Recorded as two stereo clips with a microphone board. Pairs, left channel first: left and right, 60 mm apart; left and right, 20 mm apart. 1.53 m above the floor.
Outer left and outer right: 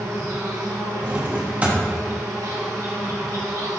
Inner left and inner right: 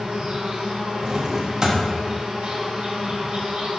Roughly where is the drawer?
Right.